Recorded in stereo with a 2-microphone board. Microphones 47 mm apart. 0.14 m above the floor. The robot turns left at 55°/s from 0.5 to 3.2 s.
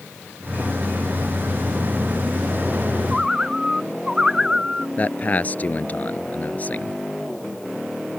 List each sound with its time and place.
3.1 s a bird: 15° right (ahead or behind); by 4.9 s 10° right (ahead or behind)
5.0 s a man speaking: 35° left (ahead or behind)